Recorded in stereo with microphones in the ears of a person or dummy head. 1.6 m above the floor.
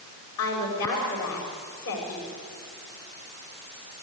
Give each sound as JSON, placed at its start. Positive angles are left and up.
{"t": 0.4, "sound": "a woman speaking", "side_deg": 80, "distance_m": 6.0}